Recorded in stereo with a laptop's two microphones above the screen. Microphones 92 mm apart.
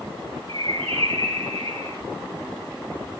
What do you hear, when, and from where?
0.5 s a bird: 75° right (ahead or behind), 5 m